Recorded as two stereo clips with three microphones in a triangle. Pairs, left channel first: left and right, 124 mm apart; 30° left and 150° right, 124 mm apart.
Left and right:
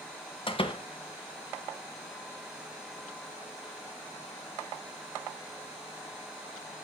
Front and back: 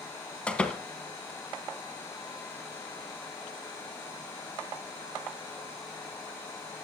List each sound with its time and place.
0.5 s a door slam: 105° left, 1.2 m